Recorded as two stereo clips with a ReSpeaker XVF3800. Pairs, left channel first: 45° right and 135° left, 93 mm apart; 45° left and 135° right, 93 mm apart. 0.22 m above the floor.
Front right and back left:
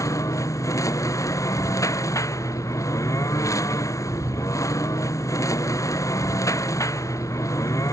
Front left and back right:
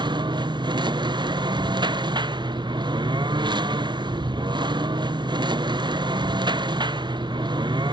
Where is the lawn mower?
100° right.